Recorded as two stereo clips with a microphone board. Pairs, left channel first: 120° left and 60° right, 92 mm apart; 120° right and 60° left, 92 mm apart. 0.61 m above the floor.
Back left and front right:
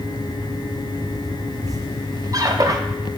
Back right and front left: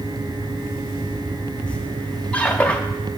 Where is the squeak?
50° right, 0.5 m.